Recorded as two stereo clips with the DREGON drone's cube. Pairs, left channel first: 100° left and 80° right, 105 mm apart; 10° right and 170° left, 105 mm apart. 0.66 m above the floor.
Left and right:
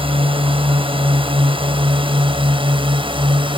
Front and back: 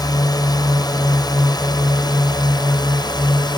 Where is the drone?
55° right; by 3.6 s 50° right.